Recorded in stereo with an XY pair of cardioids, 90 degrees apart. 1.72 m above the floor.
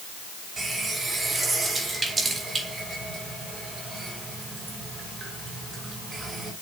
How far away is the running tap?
About 6 m.